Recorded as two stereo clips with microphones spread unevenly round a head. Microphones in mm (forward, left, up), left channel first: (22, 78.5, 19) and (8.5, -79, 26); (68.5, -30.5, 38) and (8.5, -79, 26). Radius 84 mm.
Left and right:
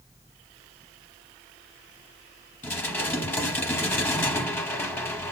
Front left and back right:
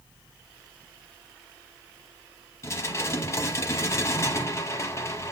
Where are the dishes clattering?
10° left, 1.2 m.